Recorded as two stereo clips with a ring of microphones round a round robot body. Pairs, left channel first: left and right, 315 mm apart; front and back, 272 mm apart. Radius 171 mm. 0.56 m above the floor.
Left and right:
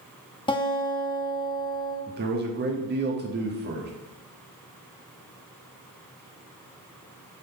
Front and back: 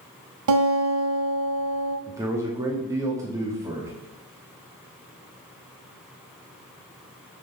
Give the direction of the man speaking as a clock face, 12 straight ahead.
4 o'clock.